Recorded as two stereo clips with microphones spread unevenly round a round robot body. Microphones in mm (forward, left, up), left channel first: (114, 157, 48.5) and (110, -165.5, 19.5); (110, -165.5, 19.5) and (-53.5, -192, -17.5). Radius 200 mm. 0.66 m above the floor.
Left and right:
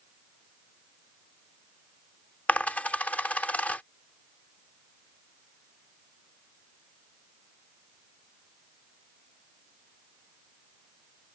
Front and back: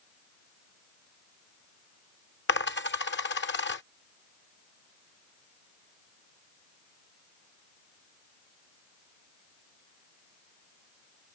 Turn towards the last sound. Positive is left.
turn(degrees=5)